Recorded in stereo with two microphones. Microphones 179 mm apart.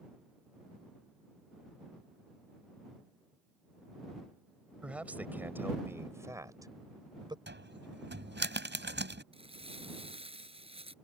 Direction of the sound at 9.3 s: 30° right (ahead or behind).